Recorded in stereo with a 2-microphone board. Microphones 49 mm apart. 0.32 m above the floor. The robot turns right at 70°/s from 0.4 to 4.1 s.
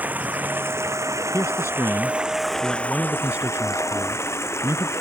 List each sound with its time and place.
0.0 s running water: 145° right; by 5.0 s 110° left
1.3 s a man speaking: 75° left; by 4.9 s 95° right